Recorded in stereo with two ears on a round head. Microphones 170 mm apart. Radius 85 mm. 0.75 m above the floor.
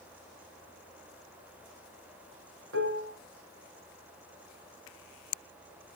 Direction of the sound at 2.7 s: 75° right (ahead or behind).